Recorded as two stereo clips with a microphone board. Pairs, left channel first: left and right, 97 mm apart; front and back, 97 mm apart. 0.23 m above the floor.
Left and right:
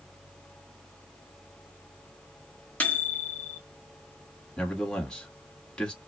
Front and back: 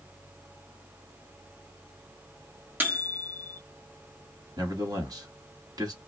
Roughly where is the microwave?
Behind left.